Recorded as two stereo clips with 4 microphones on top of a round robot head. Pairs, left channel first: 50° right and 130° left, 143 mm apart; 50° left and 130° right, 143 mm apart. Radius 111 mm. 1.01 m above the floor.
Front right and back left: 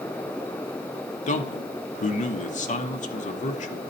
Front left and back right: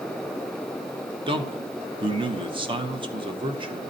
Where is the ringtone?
I don't hear a ringtone.